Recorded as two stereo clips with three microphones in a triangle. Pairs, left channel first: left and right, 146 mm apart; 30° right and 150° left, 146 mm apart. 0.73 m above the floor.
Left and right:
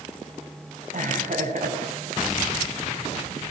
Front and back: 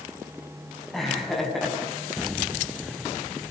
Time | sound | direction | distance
0.9 | laughter | 120° right | 7.5 m